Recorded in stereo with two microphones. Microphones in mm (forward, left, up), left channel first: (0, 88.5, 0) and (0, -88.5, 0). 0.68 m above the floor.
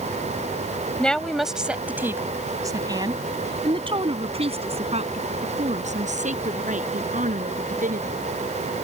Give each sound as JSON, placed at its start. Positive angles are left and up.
{"t": 1.0, "sound": "a woman speaking", "side_deg": 5}